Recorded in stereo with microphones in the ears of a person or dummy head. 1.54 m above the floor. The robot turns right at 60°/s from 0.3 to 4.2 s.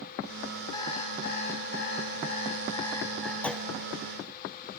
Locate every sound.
0.7 s an alarm clock: 25° left, 4.5 m; by 3.3 s 175° right, 4.5 m
3.4 s a clunk: 5° left (ahead or behind), 0.8 m; by 3.7 s 10° right (ahead or behind), 0.8 m